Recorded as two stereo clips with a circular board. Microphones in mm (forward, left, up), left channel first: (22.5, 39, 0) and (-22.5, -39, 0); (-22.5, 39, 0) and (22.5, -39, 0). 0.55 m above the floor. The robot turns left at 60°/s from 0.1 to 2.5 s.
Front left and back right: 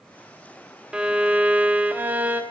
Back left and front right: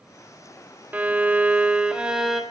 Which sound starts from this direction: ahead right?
A violin, at 0.9 s.